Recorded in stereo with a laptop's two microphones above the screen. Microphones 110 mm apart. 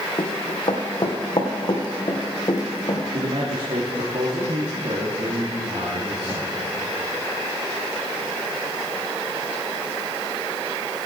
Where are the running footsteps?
50° left (ahead or behind), 2.5 m; by 3.0 s 40° left (ahead or behind), 3.5 m.